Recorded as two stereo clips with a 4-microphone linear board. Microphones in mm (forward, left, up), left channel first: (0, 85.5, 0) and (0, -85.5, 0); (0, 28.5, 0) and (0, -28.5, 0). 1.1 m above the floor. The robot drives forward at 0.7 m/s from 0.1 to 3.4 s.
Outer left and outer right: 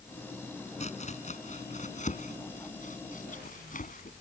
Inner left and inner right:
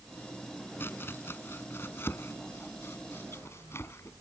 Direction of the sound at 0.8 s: 40° left (ahead or behind).